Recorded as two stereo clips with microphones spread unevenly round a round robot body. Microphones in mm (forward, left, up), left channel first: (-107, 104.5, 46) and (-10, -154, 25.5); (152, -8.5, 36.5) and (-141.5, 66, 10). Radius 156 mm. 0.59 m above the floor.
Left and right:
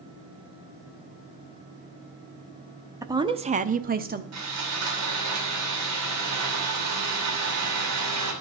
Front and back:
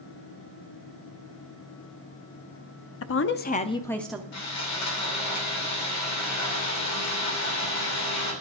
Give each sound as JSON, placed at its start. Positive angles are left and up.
{"t": 3.0, "sound": "a woman speaking", "azimuth_deg": 0, "distance_m": 0.7}
{"t": 4.3, "sound": "sawing", "azimuth_deg": -50, "distance_m": 3.0}